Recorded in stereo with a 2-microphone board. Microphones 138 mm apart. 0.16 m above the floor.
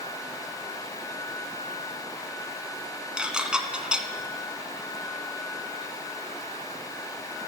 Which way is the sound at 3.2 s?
5° right (ahead or behind).